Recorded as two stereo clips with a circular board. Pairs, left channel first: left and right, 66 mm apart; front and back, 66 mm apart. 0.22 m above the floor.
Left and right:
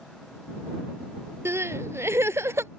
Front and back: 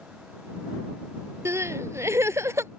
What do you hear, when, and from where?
1.4 s crying: 135° right